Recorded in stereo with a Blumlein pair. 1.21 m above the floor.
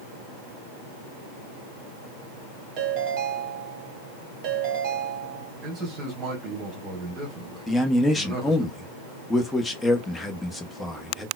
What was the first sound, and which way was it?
A ringtone, 40° right.